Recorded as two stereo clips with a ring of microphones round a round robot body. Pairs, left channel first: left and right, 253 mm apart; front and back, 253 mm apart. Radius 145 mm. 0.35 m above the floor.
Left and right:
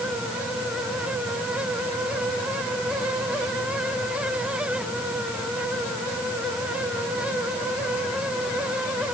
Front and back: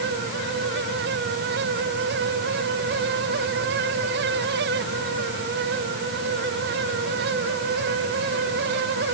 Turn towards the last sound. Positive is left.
No sound to turn to.